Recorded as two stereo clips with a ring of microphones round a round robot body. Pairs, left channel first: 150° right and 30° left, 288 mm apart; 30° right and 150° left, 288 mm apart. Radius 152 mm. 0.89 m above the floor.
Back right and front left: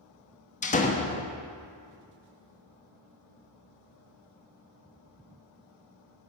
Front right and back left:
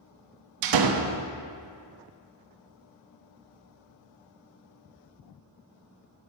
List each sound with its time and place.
0.6 s a door slam: 145° left, 1.0 m